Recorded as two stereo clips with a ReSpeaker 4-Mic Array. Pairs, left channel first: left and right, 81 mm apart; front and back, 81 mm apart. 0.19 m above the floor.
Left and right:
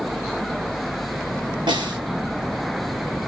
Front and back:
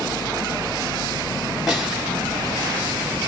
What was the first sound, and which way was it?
A snare drum, 90° right.